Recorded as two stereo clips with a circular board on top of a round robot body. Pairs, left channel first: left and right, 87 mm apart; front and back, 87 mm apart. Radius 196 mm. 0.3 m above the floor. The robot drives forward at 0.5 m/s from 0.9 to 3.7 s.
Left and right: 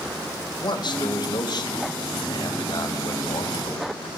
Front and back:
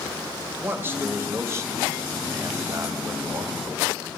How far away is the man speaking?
About 3.5 m.